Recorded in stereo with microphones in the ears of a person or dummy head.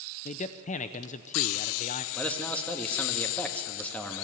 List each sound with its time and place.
0.2 s a man speaking: 30° left (ahead or behind), 0.7 m
2.1 s a man speaking: 5° left (ahead or behind), 1.7 m